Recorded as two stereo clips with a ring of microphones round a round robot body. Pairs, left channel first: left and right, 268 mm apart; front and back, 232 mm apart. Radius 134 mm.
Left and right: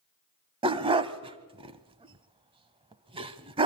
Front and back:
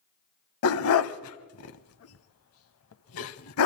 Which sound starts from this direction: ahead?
A dog barking, at 0.6 s.